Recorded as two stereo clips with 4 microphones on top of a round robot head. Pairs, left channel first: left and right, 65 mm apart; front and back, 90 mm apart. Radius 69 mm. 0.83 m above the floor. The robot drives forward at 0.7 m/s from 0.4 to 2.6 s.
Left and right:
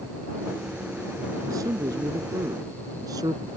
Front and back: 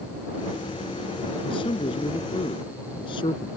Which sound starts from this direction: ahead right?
A man speaking, at 1.4 s.